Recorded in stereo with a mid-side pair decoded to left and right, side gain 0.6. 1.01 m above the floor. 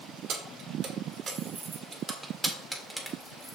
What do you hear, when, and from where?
0.3 s keys jangling: 55° right, 1.9 m; by 3.6 s straight ahead, 1.8 m